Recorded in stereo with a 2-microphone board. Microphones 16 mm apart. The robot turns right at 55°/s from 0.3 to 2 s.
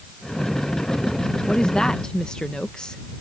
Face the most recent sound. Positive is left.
turn(degrees=75)  # may be behind; listen again after turning